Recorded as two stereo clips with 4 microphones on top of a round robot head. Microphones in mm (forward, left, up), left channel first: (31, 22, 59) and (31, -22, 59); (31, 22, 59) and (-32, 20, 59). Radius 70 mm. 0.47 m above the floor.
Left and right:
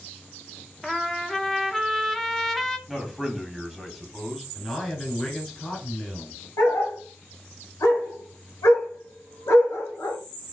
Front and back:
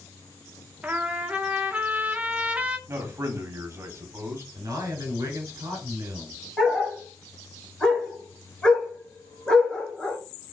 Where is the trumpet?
165° left, 0.9 m.